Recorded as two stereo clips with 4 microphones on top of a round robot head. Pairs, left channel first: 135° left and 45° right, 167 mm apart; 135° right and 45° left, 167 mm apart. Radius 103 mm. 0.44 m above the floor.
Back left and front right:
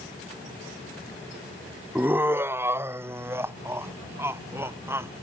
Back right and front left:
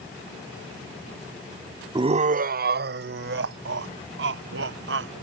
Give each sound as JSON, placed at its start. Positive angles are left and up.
{"t": 1.9, "sound": "laughter", "azimuth_deg": 25}